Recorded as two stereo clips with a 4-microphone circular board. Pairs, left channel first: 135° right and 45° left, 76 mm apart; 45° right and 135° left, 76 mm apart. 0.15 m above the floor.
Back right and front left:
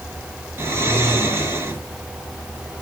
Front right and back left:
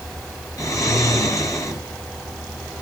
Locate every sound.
0.6 s snoring: 10° right, 2.0 m